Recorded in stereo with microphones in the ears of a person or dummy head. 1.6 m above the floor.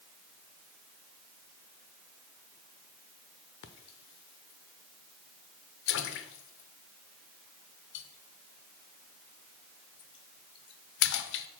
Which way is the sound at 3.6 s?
75° left (ahead or behind).